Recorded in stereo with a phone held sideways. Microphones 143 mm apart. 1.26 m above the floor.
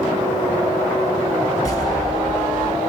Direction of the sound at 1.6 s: 25° left (ahead or behind).